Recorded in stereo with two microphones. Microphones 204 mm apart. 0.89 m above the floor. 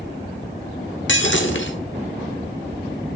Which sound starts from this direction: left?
Breaking glass, at 1.1 s.